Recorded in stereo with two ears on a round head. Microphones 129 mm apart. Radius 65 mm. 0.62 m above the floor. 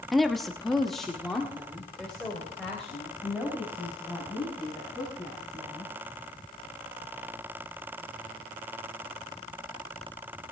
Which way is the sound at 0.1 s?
Centre (ahead or behind).